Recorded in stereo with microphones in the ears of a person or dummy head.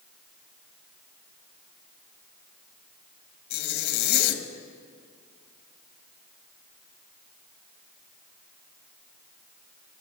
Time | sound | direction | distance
3.5 | a zipper | 55° left (ahead or behind) | 1.3 m